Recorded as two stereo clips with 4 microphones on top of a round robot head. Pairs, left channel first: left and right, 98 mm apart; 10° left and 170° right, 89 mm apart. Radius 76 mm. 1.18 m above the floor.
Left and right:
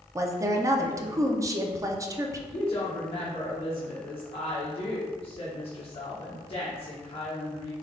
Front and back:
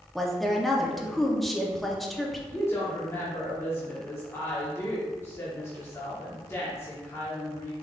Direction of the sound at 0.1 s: 75° right.